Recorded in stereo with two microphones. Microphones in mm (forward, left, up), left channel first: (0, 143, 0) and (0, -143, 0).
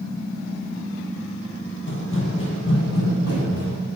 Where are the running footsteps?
40° left (ahead or behind), 1.4 m; by 3.8 s 60° left (ahead or behind), 2.5 m.